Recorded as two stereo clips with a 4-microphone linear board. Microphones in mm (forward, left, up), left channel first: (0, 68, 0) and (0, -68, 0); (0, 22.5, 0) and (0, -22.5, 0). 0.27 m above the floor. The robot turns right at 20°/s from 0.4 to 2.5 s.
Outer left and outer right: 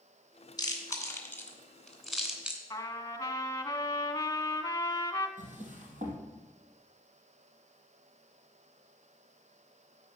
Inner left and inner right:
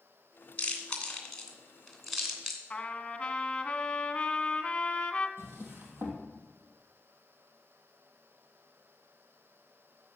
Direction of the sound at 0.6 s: 25° left (ahead or behind).